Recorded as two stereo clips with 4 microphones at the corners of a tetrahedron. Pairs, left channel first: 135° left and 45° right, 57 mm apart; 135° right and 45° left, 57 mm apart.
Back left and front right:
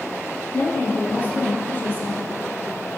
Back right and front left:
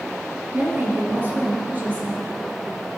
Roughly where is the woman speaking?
Left.